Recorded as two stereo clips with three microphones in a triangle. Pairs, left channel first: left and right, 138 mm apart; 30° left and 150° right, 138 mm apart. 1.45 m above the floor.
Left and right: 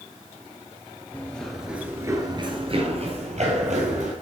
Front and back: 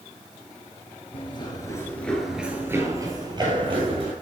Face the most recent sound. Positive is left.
turn(degrees=-105)